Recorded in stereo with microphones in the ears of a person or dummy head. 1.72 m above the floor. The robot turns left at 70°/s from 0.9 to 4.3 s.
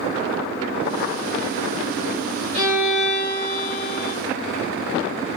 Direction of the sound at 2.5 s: 140° right.